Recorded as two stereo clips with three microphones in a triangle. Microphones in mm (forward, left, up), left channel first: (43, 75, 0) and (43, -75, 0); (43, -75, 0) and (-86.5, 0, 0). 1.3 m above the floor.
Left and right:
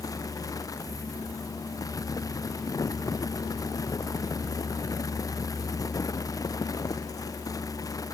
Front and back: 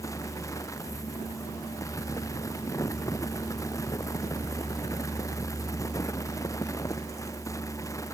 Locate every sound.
Only background noise.